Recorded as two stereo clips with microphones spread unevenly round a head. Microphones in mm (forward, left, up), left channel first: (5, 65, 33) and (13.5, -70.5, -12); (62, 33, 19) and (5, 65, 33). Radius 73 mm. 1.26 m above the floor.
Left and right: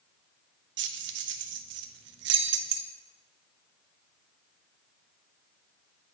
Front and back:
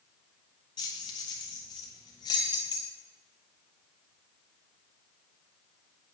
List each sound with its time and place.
0.8 s keys jangling: 85° right, 0.5 m